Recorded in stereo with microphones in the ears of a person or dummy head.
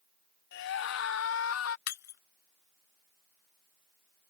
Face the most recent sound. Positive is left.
turn(degrees=55)  # may be behind; listen again after turning